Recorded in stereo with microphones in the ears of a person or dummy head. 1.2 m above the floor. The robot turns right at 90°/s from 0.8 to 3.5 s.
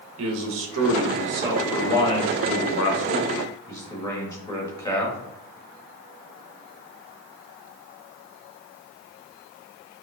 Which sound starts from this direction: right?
A man speaking, at 0.2 s.